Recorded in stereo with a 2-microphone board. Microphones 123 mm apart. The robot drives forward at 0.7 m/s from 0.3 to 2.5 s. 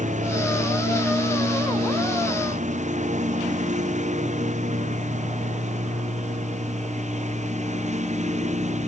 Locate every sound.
0.0 s a lawn mower: 80° right; by 8.9 s 70° right (ahead or behind)